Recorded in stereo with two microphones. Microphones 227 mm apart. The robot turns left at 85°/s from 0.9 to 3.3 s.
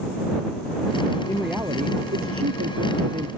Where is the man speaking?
15° left; by 3.3 s 155° right.